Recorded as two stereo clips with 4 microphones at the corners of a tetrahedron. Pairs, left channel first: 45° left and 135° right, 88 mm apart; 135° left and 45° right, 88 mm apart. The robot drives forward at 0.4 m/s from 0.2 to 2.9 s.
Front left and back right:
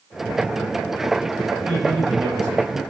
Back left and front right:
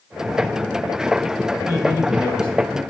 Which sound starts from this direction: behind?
A man speaking, at 1.6 s.